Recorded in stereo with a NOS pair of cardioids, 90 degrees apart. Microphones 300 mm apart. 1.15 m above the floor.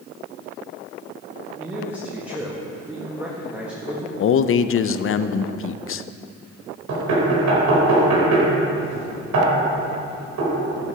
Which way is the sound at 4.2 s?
45° left.